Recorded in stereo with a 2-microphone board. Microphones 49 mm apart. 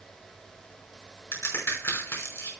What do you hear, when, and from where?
1.3 s a crack: 70° left (ahead or behind), 5.5 m